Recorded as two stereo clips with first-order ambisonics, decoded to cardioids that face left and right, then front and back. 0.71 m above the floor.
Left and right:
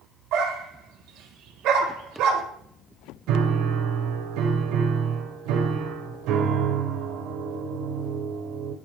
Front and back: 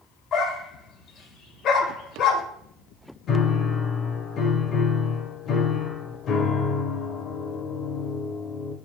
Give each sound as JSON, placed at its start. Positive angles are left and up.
{"t": 0.3, "sound": "a dog barking", "azimuth_deg": -55, "distance_m": 1.2}
{"t": 3.3, "sound": "a piano", "azimuth_deg": -60, "distance_m": 1.0}